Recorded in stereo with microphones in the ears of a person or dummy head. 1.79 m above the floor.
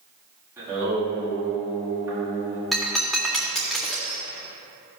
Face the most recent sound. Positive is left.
turn(degrees=0)  # may be behind; listen again after turning